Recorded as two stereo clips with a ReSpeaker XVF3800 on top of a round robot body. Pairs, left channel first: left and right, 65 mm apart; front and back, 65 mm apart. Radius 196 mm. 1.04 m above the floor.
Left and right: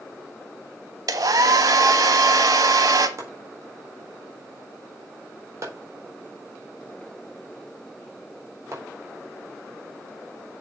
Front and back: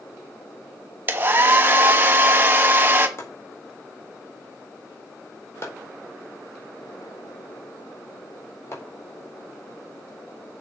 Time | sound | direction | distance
1.1 | a hair dryer | 120° right | 1.2 m
3.2 | chopping | 50° right | 4.5 m